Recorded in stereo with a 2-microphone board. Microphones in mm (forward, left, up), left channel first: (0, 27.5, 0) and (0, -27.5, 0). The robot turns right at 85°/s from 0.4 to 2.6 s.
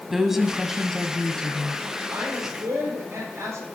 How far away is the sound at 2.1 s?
About 6 m.